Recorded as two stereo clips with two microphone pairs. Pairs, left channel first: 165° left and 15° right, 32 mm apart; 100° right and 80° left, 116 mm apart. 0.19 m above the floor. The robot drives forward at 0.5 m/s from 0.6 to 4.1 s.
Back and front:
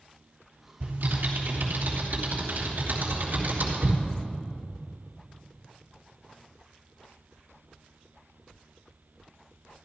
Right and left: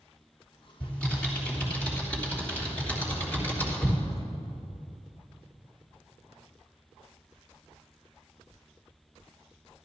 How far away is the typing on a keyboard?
About 4.5 m.